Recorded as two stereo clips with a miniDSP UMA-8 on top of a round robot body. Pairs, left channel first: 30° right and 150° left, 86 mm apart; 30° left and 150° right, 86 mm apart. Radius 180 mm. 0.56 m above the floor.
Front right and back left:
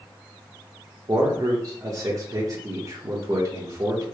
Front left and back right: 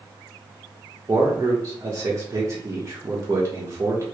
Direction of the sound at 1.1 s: 175° left.